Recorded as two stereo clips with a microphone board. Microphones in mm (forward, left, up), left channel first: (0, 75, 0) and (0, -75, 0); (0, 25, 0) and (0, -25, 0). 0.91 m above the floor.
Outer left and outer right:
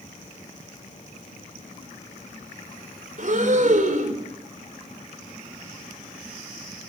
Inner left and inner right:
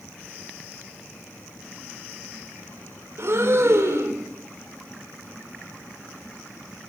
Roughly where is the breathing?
Right.